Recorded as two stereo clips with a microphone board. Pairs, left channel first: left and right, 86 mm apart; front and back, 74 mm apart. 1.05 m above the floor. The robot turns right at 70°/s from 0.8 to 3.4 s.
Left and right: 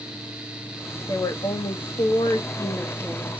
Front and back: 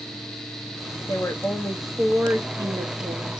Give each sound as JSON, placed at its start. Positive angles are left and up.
{"t": 1.1, "sound": "a woman speaking", "azimuth_deg": 40, "distance_m": 0.8}